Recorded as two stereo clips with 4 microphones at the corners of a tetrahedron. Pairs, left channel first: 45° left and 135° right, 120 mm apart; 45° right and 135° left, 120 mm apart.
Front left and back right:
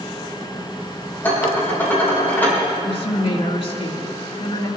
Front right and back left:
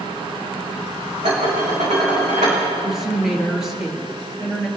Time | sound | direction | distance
1.2 | dishes clattering | 120° left | 5 m
2.8 | a woman speaking | 50° left | 2.0 m